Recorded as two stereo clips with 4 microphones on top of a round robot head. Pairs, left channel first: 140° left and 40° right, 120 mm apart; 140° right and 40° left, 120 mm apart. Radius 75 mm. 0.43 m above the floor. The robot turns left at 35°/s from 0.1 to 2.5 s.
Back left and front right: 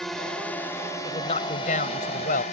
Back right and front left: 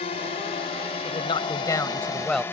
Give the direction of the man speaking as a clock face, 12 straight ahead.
6 o'clock.